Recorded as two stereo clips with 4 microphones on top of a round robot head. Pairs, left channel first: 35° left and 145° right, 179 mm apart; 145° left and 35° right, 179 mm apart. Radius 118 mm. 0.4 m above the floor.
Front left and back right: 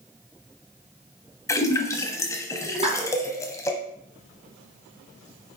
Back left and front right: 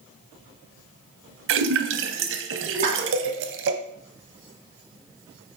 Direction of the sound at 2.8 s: 80° right.